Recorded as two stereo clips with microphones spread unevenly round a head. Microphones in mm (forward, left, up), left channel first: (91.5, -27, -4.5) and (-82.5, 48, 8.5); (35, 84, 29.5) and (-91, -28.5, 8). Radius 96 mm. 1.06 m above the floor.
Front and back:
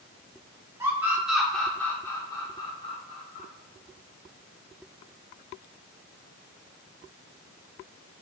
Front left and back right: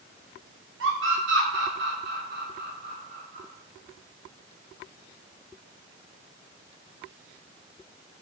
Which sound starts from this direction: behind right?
A scream, at 0.8 s.